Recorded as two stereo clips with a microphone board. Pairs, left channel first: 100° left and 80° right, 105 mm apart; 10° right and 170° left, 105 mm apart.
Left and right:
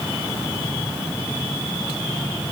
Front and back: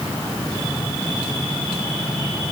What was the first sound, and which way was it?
Only background noise.